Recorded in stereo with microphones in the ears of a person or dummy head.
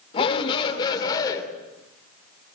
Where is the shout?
30° left (ahead or behind), 3.5 m; by 1.4 s 20° left (ahead or behind), 3.5 m.